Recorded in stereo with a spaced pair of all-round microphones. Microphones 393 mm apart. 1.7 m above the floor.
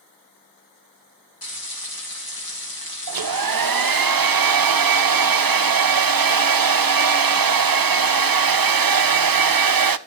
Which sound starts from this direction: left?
Frying, at 1.4 s.